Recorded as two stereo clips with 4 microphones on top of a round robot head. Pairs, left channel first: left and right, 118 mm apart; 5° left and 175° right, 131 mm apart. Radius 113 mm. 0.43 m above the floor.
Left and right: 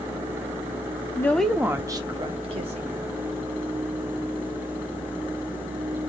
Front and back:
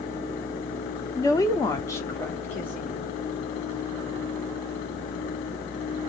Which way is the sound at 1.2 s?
40° left.